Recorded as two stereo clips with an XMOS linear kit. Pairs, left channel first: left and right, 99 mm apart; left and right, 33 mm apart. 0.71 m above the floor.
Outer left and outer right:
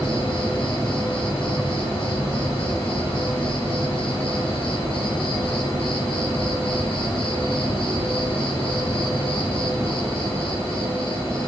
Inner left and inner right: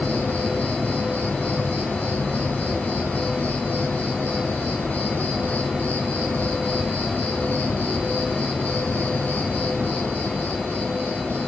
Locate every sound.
0.0 s an insect: 70° left (ahead or behind), 2 m